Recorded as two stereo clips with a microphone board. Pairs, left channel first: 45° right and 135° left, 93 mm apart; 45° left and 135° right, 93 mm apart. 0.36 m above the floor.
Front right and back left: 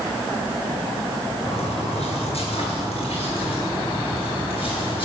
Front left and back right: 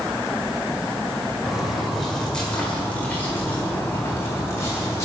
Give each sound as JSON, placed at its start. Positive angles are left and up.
{"t": 1.4, "sound": "footsteps", "azimuth_deg": -50, "distance_m": 4.0}